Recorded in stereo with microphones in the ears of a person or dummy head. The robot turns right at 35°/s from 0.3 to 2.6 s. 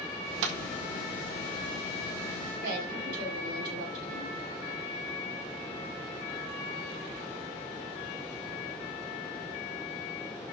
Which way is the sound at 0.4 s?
55° right (ahead or behind).